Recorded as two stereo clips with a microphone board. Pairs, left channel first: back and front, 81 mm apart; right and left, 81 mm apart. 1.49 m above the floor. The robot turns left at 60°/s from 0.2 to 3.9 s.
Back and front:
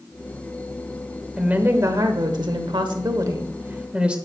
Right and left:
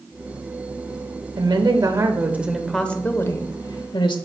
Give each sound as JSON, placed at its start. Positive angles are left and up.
{"t": 1.4, "sound": "a woman speaking", "azimuth_deg": 75, "distance_m": 0.9}